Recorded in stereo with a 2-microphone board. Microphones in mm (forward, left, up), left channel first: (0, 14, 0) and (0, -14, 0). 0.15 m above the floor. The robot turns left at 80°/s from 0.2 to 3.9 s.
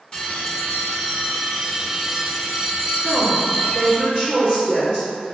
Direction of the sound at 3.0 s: 5° right.